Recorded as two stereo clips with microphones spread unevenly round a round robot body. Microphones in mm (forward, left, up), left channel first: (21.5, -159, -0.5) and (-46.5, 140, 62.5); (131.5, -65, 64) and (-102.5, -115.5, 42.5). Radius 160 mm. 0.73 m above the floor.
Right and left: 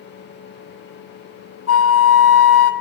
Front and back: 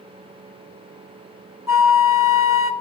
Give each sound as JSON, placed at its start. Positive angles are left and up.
{"t": 1.7, "sound": "a flute", "azimuth_deg": -95, "distance_m": 1.7}